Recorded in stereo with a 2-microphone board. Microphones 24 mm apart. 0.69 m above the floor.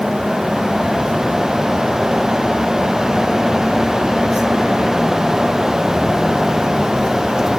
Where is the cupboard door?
No cupboard door in this recording.